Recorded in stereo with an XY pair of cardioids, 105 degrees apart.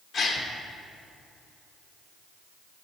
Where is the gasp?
65° left, 1.1 m.